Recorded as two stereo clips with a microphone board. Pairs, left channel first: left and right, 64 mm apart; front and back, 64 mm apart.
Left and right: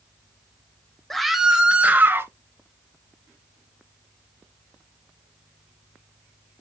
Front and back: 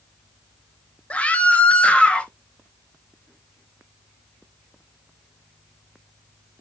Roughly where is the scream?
Ahead.